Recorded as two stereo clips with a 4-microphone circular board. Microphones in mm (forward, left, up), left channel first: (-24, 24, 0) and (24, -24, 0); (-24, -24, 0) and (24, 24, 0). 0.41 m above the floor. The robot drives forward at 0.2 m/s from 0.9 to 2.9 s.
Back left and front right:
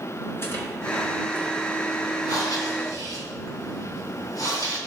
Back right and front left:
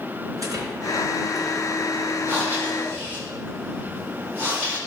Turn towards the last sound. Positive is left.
turn(degrees=105)